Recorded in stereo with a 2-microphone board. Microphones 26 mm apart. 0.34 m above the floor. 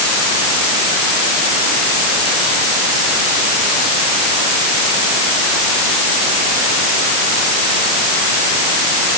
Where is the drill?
No drill in this recording.